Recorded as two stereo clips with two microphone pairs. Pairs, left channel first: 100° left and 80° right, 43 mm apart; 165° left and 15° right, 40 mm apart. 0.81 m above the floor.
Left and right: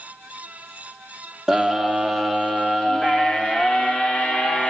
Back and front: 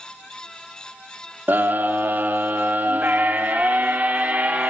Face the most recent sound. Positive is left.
turn(degrees=40)